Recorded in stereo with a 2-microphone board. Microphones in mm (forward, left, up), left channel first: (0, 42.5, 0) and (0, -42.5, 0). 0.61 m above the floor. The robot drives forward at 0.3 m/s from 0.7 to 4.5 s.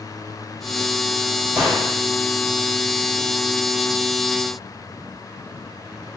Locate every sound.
1.6 s a gunshot: 15° right (ahead or behind), 1.5 m